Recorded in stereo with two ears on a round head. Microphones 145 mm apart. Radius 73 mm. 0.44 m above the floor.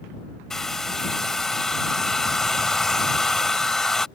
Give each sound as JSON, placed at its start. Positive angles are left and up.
{"t": 0.5, "sound": "a hair dryer", "side_deg": 5}